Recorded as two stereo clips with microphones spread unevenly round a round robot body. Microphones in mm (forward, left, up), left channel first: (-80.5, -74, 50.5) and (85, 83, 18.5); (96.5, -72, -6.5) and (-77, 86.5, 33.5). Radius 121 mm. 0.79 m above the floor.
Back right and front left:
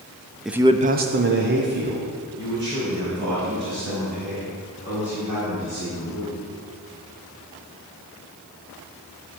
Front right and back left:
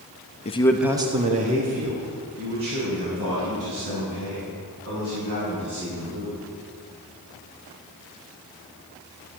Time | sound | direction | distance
0.5 | a man speaking | 35° right | 0.8 m